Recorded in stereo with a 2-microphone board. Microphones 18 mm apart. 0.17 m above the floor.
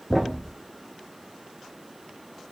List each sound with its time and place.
0.1 s a thud: 5° left (ahead or behind), 1.9 m